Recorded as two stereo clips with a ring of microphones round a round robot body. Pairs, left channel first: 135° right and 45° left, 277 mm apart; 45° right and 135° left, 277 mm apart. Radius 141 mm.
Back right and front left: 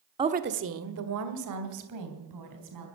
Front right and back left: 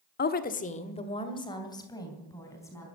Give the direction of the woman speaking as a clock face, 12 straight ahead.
1 o'clock.